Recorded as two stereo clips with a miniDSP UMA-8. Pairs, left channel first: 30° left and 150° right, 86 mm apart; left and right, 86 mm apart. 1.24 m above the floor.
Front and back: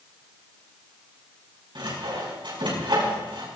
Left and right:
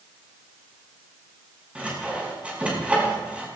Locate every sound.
1.8 s sawing: 165° right, 5.5 m